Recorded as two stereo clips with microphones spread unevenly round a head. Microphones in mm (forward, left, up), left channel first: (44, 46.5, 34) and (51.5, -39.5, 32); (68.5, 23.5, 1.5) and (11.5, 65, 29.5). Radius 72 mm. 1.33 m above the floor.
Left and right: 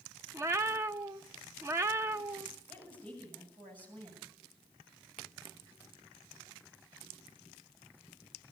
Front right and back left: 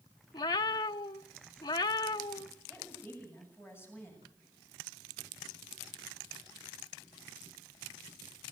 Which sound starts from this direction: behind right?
A woman speaking, at 2.7 s.